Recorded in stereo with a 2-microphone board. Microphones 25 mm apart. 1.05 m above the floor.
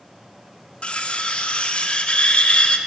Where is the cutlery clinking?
55° left (ahead or behind), 0.5 m.